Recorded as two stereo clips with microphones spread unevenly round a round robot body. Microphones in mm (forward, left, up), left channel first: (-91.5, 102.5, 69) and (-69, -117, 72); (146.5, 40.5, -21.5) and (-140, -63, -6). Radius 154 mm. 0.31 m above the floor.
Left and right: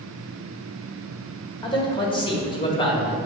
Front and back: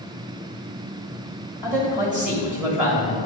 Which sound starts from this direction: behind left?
A man speaking, at 1.6 s.